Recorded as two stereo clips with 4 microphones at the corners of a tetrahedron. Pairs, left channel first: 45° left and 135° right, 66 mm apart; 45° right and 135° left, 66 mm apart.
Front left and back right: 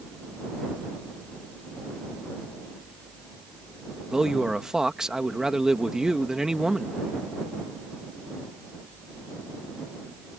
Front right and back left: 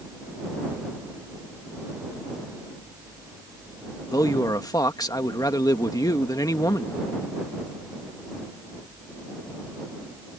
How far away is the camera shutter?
No camera shutter in this recording.